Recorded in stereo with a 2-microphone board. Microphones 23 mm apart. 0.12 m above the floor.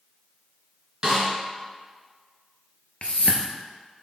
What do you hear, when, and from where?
1.0 s a snare drum: 20° right (ahead or behind), 1.9 m
3.0 s a whoosh: 55° left (ahead or behind), 0.6 m